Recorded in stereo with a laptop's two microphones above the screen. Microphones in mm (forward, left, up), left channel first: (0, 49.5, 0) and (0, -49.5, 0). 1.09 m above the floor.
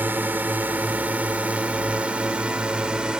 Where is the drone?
20° right (ahead or behind); by 3.2 s 5° right (ahead or behind).